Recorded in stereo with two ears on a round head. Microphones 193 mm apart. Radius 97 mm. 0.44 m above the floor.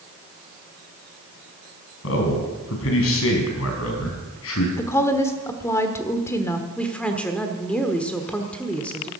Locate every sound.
2.0 s a man speaking: 70° left (ahead or behind), 4 m
4.8 s a woman speaking: 15° left (ahead or behind), 1.2 m
6.8 s a woman speaking: 5° left (ahead or behind), 1.2 m